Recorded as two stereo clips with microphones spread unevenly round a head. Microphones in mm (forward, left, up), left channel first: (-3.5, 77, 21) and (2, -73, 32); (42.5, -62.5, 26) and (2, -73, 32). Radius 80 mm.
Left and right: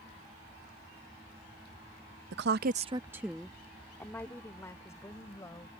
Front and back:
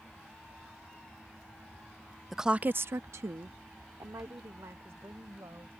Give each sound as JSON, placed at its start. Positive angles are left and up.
{"t": 2.3, "sound": "a woman speaking", "azimuth_deg": -75}